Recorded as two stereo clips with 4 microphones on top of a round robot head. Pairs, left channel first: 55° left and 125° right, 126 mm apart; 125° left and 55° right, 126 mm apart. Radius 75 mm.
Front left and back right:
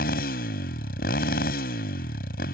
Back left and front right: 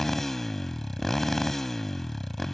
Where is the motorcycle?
40° left.